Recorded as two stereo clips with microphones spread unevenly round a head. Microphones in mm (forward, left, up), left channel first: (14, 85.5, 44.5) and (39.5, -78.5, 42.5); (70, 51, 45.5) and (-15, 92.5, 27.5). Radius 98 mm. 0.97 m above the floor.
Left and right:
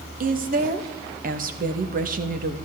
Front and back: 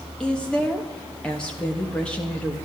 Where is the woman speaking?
115° right, 1.4 m.